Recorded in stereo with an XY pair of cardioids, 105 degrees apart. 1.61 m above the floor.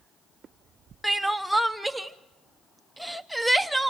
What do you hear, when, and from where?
1.0 s crying: 5° right, 0.8 m